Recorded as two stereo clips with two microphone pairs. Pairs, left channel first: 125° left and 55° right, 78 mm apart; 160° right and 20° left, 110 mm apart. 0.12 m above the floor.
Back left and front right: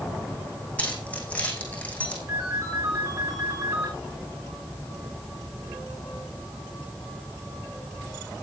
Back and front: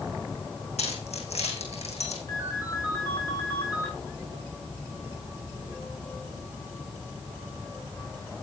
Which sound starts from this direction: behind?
Keys jangling, at 0.8 s.